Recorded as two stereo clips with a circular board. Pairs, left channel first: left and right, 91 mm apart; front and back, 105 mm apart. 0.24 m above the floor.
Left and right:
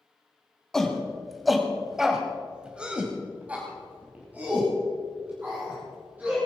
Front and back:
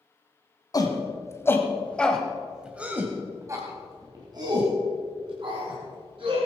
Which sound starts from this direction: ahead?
A shout, at 0.7 s.